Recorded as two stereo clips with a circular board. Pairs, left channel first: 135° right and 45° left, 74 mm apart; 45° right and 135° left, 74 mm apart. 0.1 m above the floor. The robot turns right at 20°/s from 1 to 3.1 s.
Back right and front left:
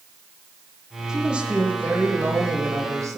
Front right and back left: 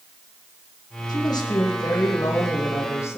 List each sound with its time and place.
1.1 s a woman speaking: 35° right, 4 m; by 3.2 s 5° left, 4 m